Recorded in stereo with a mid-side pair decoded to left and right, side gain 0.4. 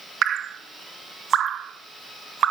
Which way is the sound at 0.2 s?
65° right.